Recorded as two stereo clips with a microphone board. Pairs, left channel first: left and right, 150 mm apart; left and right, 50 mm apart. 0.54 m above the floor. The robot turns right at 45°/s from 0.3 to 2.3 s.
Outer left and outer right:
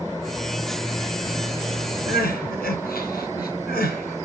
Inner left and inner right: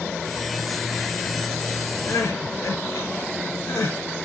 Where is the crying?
80° left, 3.5 m; by 4.2 s 85° left, 3.5 m.